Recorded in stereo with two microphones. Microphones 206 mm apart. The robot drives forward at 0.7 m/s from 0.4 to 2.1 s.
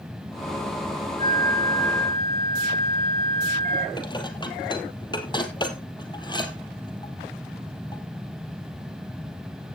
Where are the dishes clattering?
20° left (ahead or behind), 1.9 m.